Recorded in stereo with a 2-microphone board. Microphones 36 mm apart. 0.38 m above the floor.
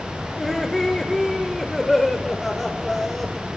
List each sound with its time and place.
0.4 s laughter: 5° left (ahead or behind), 1.3 m